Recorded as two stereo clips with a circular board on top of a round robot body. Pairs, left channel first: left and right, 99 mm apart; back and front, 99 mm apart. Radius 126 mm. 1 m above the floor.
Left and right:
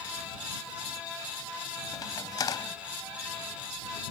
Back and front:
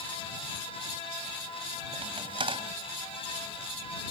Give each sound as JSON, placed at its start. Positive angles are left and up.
{"t": 1.9, "sound": "a crack", "azimuth_deg": 35}